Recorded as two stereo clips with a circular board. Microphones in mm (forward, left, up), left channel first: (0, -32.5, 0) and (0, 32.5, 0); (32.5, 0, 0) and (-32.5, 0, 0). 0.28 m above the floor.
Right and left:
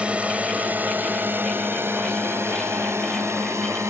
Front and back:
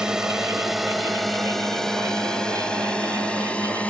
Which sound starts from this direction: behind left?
A drone, at 0.0 s.